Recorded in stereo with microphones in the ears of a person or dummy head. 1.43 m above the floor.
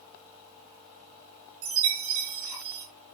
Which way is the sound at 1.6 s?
75° right (ahead or behind).